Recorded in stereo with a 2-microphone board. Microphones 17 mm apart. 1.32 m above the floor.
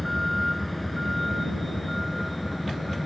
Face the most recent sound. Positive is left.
turn(degrees=5)  # may be behind; listen again after turning